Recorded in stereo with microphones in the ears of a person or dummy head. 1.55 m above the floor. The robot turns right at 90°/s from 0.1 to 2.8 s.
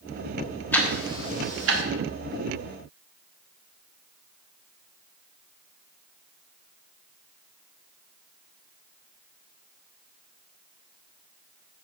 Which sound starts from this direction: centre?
Ticking, at 0.7 s.